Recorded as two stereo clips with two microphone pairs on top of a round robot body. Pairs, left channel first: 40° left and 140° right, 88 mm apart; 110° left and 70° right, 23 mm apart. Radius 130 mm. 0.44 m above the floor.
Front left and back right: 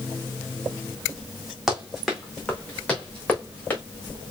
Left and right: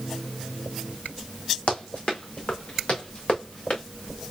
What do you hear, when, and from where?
1.7 s running footsteps: 130° left, 2 m; by 3.8 s 105° left, 3.5 m